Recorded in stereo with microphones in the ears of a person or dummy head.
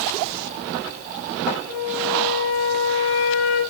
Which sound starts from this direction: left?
A flute, at 1.7 s.